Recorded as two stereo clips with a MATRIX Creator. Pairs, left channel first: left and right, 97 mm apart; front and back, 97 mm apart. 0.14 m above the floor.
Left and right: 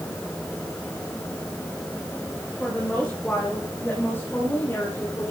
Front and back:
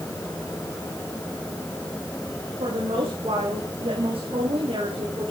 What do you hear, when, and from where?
2.6 s a woman speaking: 175° left, 7.5 m; by 5.3 s 150° left, 7 m